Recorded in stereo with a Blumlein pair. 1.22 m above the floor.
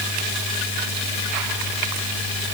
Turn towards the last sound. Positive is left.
No sound to turn to.